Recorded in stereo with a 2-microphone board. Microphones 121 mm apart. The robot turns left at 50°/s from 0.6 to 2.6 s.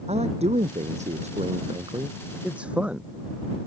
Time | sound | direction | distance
0.1 | a man speaking | 70° right | ?